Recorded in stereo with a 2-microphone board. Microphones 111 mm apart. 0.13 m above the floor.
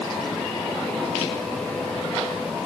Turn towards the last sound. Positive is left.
No sound to turn to.